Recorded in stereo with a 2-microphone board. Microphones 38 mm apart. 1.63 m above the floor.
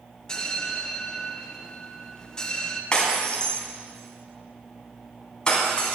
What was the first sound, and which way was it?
A bell, 20° left (ahead or behind).